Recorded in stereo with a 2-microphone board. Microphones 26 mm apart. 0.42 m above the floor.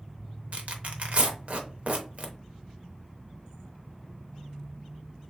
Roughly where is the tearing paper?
Right.